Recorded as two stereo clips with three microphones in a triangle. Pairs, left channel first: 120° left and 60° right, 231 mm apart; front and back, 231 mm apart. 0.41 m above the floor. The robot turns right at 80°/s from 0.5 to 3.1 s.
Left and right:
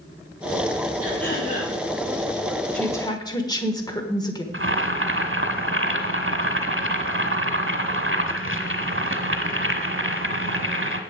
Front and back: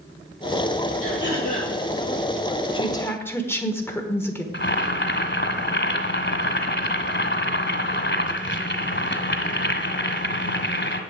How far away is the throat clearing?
About 6 m.